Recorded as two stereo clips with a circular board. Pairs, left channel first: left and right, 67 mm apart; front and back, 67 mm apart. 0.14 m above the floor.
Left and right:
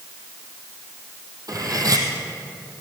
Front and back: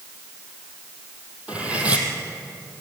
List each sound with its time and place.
1.5 s cutlery clinking: 110° right, 3 m